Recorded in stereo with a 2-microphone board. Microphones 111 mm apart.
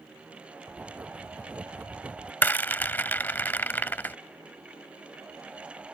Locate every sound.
0.7 s writing: 15° right (ahead or behind)
2.4 s a rattle: 15° left (ahead or behind)